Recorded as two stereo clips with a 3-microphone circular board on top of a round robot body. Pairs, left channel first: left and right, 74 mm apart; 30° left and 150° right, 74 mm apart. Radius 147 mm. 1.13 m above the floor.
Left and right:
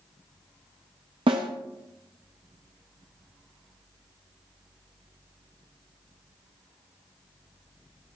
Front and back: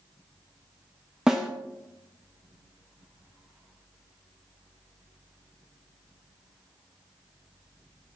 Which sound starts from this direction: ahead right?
A snare drum, at 1.3 s.